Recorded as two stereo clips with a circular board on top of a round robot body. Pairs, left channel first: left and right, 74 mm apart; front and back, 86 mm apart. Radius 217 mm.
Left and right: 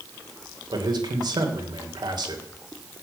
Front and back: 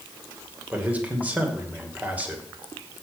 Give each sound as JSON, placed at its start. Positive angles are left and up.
{"t": 0.7, "sound": "a man speaking", "azimuth_deg": -105, "distance_m": 3.0}